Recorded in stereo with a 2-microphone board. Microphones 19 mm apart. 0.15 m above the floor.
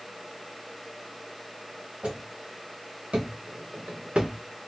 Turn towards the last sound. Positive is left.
turn(degrees=-80)